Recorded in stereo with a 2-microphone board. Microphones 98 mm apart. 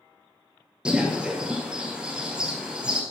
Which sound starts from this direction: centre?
A bird, at 0.8 s.